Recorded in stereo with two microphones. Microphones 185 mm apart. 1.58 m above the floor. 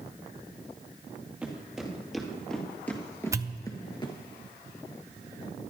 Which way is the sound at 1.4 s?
5° right (ahead or behind).